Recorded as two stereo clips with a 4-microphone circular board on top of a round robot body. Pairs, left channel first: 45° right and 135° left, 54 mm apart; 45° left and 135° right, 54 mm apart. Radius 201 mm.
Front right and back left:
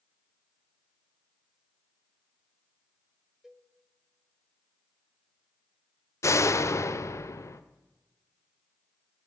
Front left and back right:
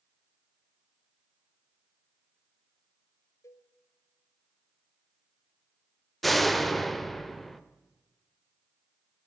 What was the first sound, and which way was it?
A cowbell, 50° left.